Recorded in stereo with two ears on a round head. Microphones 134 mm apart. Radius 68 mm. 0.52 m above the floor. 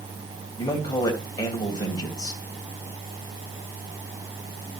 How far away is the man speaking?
About 2.5 m.